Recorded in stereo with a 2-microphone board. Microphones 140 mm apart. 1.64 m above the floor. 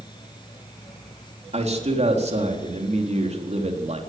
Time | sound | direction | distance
1.5 | a man speaking | 50° right (ahead or behind) | 4 m